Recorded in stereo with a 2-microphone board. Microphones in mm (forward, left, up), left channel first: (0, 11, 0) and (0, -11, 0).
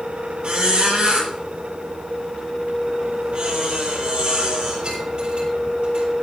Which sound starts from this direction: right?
A squeak, at 0.4 s.